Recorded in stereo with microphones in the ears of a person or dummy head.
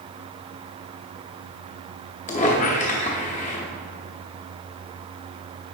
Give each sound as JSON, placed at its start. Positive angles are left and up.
{"t": 2.3, "sound": "a squeak", "side_deg": 35, "distance_m": 1.0}